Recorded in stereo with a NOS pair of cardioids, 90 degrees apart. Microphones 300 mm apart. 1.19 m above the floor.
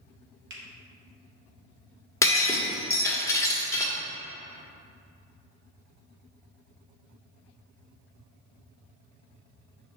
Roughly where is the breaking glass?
Ahead.